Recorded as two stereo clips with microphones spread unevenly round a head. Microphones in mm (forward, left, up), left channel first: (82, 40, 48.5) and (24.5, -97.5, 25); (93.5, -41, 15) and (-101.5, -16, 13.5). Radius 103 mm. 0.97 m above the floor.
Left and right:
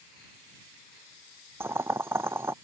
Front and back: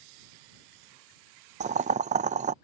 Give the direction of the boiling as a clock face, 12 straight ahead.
5 o'clock.